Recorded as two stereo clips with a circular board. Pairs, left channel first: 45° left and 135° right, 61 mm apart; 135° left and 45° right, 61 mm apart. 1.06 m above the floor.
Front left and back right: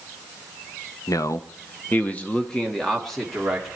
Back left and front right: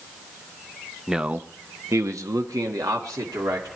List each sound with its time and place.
1.1 s a man speaking: 35° left, 0.7 m; by 3.7 s 45° right, 2 m